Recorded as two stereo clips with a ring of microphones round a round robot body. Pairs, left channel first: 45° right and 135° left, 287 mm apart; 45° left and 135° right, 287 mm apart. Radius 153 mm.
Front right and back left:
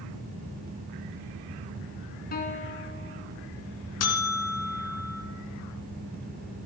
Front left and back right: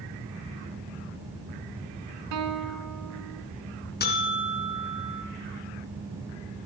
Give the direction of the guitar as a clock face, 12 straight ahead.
3 o'clock.